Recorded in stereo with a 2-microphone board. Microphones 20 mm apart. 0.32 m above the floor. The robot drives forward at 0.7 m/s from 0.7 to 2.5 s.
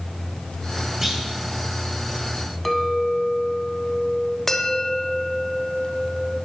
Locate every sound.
1.0 s a clunk: 10° right (ahead or behind), 2.5 m
2.6 s a clink: 5° left (ahead or behind), 1.3 m
4.5 s a bell: 20° left (ahead or behind), 1.0 m